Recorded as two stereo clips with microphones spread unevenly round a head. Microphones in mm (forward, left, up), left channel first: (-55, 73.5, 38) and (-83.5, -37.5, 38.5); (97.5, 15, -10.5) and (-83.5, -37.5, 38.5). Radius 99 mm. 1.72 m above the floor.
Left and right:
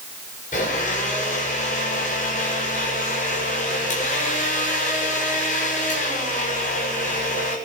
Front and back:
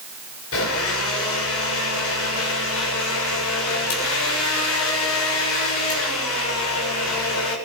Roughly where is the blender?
Ahead left.